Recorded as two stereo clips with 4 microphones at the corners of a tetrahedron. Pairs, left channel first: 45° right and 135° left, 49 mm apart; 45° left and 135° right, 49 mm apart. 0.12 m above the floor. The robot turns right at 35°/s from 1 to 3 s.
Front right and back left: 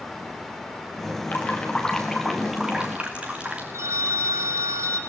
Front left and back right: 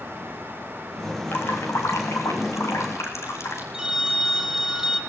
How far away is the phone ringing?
About 2.5 m.